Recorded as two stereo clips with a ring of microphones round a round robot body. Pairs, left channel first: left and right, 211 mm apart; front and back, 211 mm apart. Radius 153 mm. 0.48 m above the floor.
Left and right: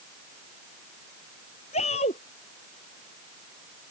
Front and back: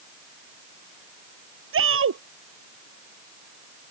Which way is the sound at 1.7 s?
160° left.